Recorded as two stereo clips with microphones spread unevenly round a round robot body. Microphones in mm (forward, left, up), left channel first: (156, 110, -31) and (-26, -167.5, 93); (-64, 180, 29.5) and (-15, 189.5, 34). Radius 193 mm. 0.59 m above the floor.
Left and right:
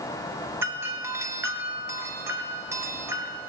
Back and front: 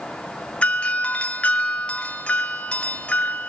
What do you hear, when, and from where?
0.6 s a doorbell: 140° left, 1.7 m